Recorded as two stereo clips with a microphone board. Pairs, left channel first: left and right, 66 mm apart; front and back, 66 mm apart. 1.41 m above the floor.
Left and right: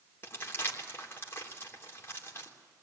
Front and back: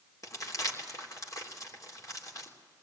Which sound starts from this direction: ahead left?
Crumpling, at 0.2 s.